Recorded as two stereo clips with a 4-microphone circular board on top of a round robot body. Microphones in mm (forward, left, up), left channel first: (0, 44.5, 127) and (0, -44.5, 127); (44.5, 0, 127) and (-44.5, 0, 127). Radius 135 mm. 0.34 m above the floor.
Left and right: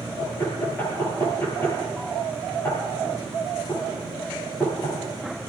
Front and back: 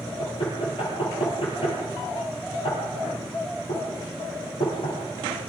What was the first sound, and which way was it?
Knocking, 25° left.